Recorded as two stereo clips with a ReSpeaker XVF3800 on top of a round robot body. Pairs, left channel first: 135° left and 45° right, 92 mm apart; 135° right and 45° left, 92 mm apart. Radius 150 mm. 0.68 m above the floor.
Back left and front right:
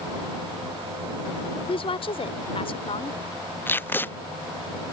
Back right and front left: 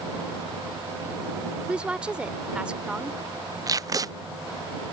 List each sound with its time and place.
1.7 s a woman speaking: 125° left
3.7 s tape being pulled: 75° left